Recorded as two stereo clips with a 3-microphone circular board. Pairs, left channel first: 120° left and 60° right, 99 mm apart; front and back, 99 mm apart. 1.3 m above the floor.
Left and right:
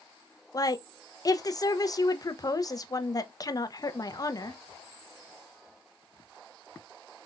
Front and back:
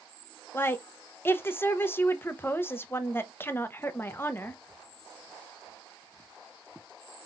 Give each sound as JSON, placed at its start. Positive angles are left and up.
{"t": 0.5, "sound": "a woman speaking", "azimuth_deg": 65, "distance_m": 0.8}